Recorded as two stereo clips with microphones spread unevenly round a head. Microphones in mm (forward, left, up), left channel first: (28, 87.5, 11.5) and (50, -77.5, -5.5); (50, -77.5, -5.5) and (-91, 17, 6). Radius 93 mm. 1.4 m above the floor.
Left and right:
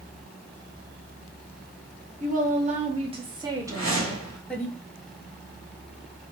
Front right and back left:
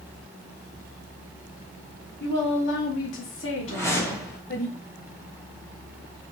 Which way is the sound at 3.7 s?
110° right.